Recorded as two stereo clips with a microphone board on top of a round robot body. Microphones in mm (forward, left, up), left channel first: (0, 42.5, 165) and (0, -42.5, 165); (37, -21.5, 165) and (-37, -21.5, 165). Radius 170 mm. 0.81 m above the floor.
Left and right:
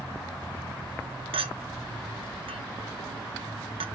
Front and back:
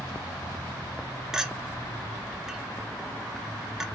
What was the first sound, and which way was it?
A clink, 95° right.